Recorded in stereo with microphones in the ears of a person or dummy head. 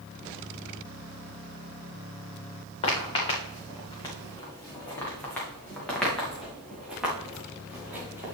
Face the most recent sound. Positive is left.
turn(degrees=-15)  # may be behind; listen again after turning